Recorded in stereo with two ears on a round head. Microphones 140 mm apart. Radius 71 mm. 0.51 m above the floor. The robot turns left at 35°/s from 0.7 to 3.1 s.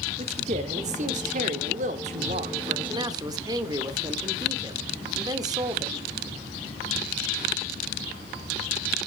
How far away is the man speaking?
About 1.2 m.